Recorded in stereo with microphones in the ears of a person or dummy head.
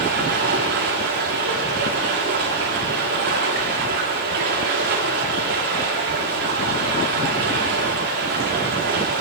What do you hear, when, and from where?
0.0 s running water: 55° right (ahead or behind), 1.7 m